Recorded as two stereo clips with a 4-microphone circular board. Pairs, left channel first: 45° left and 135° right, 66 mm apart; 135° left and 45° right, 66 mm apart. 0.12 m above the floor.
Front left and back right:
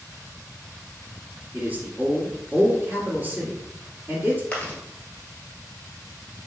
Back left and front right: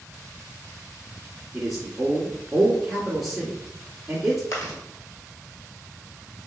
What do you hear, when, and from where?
1.5 s a man speaking: 130° right, 1.5 m
4.5 s chewing: 110° left, 1.4 m